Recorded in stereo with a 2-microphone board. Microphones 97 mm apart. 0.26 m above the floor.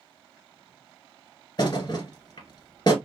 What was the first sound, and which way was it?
A thud, 45° left (ahead or behind).